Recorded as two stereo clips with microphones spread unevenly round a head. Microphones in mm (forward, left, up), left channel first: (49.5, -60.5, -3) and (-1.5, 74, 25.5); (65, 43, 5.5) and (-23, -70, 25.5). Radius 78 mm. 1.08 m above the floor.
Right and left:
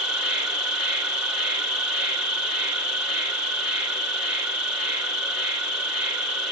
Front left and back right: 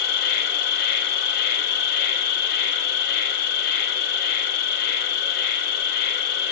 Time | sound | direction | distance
0.0 | an insect | 35° left | 0.8 m